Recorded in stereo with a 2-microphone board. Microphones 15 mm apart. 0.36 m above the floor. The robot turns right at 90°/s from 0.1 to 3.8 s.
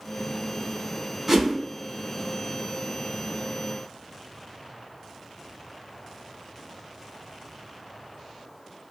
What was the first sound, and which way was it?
A whoosh, 25° right (ahead or behind).